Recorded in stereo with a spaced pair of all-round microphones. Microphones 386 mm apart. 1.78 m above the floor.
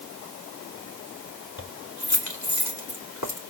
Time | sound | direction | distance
1.6 | keys jangling | 45° left (ahead or behind) | 2.5 m